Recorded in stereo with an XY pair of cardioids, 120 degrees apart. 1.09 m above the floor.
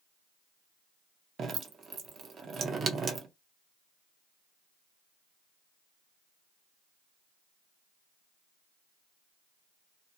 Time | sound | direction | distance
1.4 | dripping | 40° right | 0.7 m